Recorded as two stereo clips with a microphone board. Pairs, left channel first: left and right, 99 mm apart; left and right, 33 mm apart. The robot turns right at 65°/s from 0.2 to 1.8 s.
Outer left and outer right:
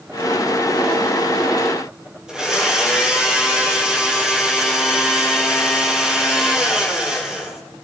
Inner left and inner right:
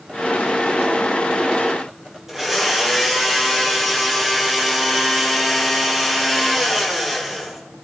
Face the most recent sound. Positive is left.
turn(degrees=-5)  # may be behind; listen again after turning